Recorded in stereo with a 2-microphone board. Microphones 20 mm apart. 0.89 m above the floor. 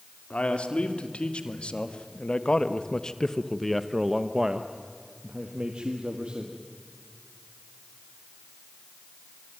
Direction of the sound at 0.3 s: 75° left (ahead or behind).